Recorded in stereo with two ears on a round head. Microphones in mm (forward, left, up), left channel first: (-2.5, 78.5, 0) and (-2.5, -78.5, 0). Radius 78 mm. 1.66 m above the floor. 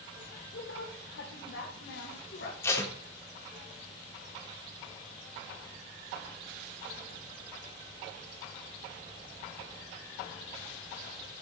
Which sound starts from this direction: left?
A woman speaking, at 0.5 s.